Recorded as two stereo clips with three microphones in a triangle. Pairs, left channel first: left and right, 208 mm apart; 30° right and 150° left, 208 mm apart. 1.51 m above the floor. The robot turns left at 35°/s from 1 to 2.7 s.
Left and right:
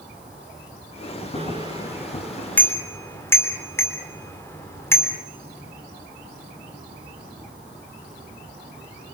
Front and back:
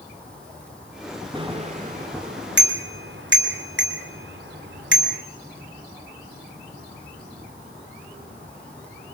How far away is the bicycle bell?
About 3 m.